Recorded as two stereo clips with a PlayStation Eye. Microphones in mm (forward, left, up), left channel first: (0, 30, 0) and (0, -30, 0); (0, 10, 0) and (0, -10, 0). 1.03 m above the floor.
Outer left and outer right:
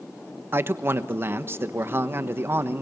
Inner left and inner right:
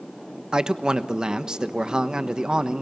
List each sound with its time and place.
0.5 s a man speaking: 40° right (ahead or behind), 1.1 m